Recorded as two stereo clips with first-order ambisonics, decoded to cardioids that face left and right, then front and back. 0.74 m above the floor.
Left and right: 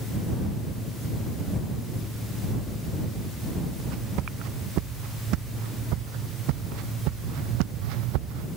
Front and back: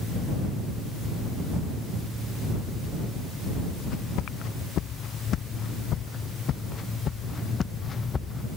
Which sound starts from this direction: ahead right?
Footsteps, at 3.8 s.